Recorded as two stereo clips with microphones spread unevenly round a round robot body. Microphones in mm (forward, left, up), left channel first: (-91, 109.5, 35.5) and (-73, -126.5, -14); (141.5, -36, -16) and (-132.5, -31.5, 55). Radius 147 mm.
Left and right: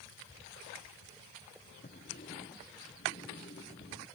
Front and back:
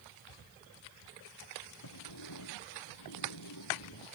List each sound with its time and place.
1.8 s a sliding door: 30° left